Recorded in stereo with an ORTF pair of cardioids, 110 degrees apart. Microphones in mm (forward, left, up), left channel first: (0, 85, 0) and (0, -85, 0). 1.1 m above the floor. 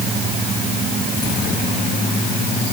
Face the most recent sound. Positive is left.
No sound to turn to.